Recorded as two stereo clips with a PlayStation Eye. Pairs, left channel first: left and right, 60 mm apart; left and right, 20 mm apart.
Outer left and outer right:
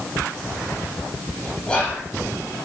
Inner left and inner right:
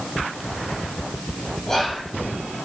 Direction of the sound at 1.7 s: 15° left (ahead or behind).